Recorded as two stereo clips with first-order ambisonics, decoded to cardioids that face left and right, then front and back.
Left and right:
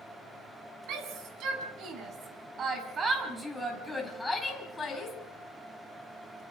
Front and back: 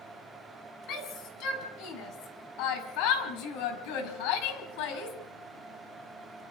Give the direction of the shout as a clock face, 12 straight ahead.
2 o'clock.